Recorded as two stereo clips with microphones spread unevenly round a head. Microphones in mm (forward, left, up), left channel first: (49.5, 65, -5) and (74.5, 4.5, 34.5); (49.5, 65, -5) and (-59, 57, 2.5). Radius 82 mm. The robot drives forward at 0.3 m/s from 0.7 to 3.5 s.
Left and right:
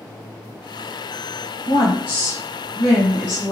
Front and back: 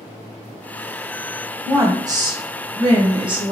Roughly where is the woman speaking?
Behind left.